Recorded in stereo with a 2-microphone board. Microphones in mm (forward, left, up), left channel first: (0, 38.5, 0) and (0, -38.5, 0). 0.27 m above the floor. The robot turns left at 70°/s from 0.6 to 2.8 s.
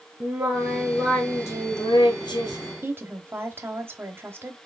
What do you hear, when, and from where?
0.2 s singing: 160° right, 1.6 m; by 2.7 s 55° left, 1.6 m
2.8 s a woman speaking: 30° right (ahead or behind), 1.0 m